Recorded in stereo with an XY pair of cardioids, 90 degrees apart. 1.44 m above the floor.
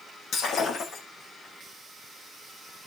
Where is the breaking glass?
70° left, 9.5 m.